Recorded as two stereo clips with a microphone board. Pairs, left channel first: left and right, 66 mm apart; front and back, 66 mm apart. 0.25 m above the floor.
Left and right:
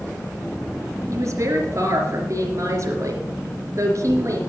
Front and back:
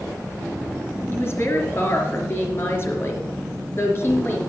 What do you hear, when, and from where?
1.1 s a woman speaking: 50° right, 3.5 m